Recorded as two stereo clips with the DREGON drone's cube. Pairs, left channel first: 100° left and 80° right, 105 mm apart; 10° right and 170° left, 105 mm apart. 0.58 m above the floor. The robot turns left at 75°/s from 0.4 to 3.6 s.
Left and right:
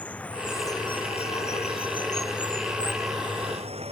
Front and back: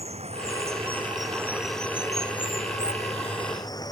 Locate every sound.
0.0 s running water: 175° left; by 3.9 s 65° right